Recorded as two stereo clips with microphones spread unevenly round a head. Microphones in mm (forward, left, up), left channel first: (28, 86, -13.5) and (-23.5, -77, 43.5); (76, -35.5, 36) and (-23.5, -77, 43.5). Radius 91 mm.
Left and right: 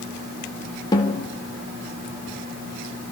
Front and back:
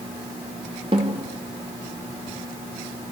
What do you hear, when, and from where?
0.9 s a snare drum: 145° left, 3.5 m